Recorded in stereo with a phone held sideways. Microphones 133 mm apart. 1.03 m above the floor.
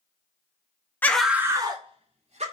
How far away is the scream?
About 0.5 m.